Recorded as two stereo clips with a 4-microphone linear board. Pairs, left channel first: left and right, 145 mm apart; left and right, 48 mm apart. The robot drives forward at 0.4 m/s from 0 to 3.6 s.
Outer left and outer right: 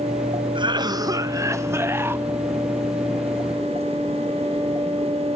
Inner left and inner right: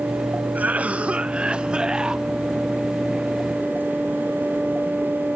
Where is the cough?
35° right (ahead or behind), 0.6 m; by 2.2 s 15° right (ahead or behind), 1.2 m.